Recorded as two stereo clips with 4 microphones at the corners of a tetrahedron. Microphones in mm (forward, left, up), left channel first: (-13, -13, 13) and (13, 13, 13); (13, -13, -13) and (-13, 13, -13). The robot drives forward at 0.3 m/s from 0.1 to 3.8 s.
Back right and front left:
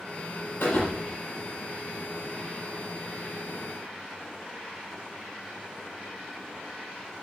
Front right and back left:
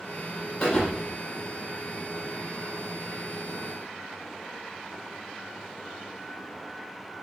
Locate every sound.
0.6 s a thud: 110° right, 6 m; by 1.2 s 115° right, 6 m